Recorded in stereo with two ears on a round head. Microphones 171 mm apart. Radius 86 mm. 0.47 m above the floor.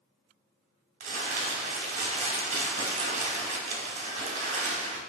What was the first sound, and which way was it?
Crumpling, 45° right (ahead or behind).